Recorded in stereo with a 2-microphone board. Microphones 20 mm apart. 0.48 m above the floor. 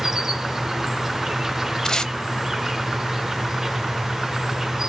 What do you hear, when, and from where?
0.0 s an insect: 25° right (ahead or behind), 0.8 m
1.9 s tape being pulled: 35° left (ahead or behind), 0.7 m